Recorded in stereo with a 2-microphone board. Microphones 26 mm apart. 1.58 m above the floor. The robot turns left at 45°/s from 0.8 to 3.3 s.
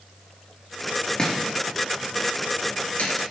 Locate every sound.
1.2 s chopping: 30° left (ahead or behind), 5 m; by 3.3 s 50° left (ahead or behind), 5 m